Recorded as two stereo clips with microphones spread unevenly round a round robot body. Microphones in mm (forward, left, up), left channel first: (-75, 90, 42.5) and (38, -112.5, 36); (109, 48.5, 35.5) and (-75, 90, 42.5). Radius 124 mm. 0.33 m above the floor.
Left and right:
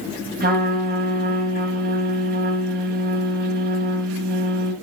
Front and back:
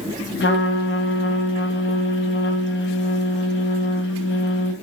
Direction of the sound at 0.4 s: 10° right.